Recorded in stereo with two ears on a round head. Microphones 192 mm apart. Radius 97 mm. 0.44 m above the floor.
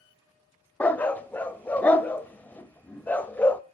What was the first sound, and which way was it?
A dog barking, 5° left (ahead or behind).